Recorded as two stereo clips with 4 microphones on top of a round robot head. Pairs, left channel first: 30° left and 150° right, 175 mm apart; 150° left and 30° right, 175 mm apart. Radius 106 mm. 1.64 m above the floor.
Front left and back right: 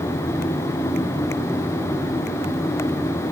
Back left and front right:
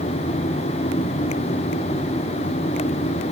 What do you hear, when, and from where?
Only background noise.